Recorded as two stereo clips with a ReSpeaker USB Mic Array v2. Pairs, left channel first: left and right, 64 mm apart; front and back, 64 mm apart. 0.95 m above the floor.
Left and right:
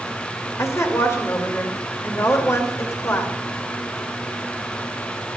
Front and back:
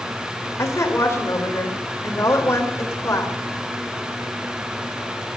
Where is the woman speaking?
45° left, 3 m.